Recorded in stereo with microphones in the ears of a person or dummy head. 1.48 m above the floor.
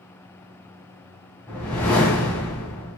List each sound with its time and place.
1.5 s a whoosh: 5° left (ahead or behind), 0.9 m